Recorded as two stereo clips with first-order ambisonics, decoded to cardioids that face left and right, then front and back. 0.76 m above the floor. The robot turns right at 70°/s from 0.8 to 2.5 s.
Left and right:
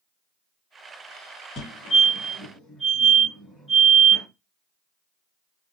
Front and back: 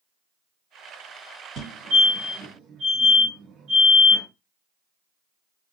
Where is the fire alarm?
130° left, 1.8 m; by 4.2 s 165° right, 1.8 m.